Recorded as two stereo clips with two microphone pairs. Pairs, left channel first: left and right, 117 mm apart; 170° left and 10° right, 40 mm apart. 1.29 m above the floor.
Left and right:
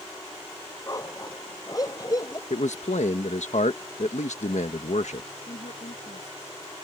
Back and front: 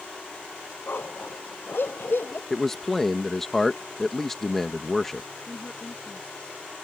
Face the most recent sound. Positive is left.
turn(degrees=110)